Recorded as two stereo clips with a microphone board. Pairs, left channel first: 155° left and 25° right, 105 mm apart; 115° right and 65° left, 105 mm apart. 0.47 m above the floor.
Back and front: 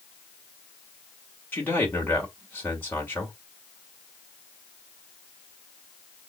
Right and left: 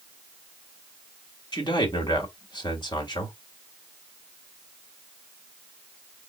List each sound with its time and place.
1.5 s a man speaking: 135° right, 2.0 m